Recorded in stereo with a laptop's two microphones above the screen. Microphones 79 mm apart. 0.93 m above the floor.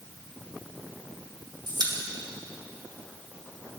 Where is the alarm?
No alarm in this recording.